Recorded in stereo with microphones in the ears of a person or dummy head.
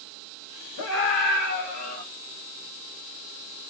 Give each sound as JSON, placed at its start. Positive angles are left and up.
{"t": 0.8, "sound": "a scream", "side_deg": 75, "distance_m": 1.4}